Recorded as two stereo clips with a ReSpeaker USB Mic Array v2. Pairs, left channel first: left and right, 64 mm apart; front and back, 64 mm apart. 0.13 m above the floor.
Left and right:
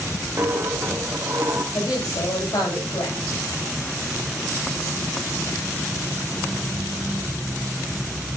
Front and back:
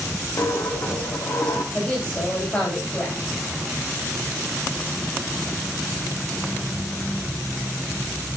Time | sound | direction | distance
0.4 | a dropped coin | 40° right | 2.5 m
1.7 | a woman speaking | 70° left | 10 m